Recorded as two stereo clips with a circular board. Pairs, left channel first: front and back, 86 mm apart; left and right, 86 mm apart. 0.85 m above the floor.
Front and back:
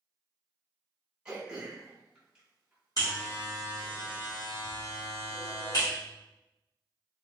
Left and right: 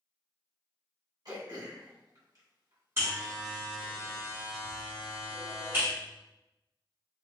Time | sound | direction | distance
1.2 | throat clearing | 100° right | 1.1 m
3.0 | a buzzer | 35° right | 1.6 m